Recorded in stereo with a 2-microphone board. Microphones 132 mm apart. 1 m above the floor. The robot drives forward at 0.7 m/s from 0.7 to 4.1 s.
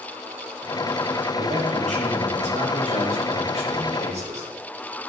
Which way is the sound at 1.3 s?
70° right (ahead or behind).